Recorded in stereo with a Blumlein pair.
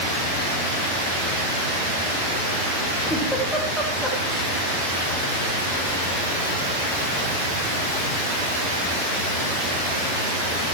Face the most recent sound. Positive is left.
turn(degrees=0)